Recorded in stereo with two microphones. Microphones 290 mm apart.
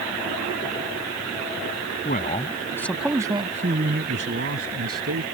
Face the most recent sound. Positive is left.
turn(degrees=-60)  # may be behind; listen again after turning